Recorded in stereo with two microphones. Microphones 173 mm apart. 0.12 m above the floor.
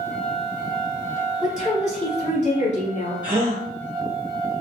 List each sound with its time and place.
1.4 s a woman speaking: 45° left (ahead or behind), 1.9 m
3.2 s a gasp: 25° left (ahead or behind), 1.8 m